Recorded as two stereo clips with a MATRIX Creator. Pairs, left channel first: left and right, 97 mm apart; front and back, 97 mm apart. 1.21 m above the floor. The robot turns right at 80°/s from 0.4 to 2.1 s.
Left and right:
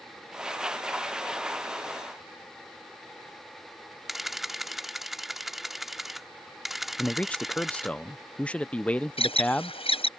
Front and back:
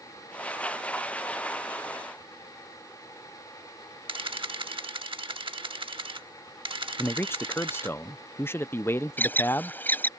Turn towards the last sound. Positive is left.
turn(degrees=70)